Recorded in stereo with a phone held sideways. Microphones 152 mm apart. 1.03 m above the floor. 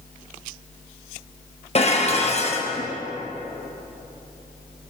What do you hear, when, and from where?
1.8 s dishes clattering: 45° left (ahead or behind), 1.0 m